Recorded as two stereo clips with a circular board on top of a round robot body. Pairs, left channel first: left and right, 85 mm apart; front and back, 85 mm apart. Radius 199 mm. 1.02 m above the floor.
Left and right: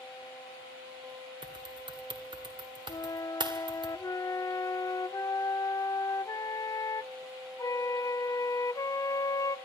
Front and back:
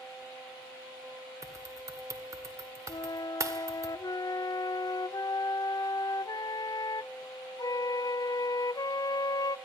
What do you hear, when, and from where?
1.4 s typing on a keyboard: 125° right, 1.9 m
2.9 s a flute: 40° left, 0.6 m